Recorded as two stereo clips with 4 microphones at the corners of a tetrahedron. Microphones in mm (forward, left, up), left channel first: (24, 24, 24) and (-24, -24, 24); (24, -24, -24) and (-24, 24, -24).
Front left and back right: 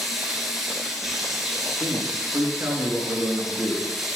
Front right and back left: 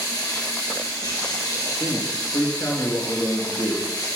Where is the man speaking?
90° right, 3.5 m.